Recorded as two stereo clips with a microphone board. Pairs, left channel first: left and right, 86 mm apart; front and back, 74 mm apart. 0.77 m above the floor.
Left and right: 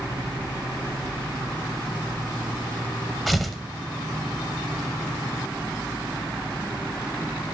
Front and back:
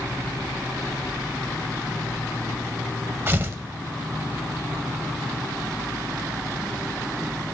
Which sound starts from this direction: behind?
Tearing paper, at 3.3 s.